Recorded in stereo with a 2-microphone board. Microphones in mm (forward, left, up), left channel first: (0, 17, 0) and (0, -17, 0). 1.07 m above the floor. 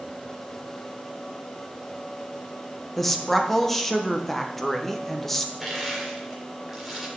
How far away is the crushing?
About 2.5 m.